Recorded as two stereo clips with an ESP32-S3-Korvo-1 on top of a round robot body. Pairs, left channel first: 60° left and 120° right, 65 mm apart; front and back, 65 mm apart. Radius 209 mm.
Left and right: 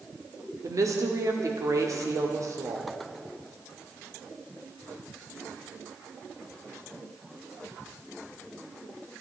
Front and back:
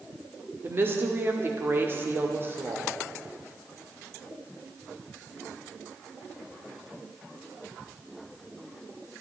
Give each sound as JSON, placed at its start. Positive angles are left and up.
{"t": 0.6, "sound": "a woman speaking", "azimuth_deg": -135, "distance_m": 2.0}